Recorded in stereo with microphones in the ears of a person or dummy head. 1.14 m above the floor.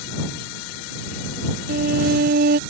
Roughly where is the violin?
Right.